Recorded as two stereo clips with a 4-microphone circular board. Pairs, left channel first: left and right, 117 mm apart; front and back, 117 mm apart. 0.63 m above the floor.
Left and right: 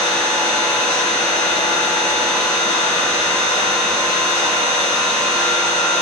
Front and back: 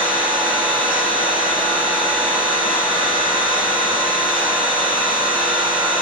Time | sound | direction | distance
0.0 | an engine running | 90° left | 1.9 m